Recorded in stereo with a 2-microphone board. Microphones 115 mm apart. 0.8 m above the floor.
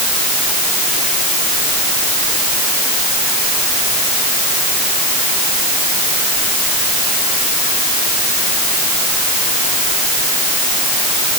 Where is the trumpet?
I don't hear a trumpet.